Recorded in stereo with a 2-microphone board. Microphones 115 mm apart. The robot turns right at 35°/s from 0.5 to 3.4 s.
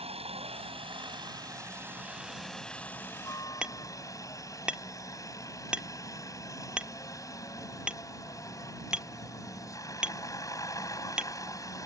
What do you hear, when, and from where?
0.0 s a helicopter: 70° right; by 11.9 s 30° left
3.6 s hammering: 10° right (ahead or behind)